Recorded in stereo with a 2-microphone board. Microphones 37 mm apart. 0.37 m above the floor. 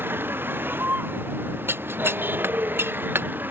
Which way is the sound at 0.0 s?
70° right (ahead or behind).